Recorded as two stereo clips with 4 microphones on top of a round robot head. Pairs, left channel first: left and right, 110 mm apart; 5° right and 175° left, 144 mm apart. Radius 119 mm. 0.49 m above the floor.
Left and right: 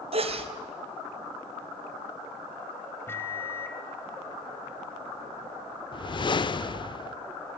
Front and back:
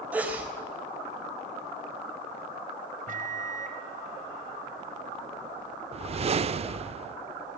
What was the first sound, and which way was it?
A sneeze, 105° right.